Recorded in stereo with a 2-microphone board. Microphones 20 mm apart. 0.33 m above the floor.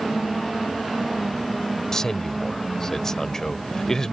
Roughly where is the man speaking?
Left.